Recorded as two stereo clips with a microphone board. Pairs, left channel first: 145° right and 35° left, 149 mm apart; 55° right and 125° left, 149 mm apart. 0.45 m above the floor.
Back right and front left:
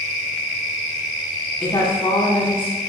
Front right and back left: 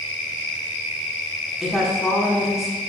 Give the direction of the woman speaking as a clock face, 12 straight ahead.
5 o'clock.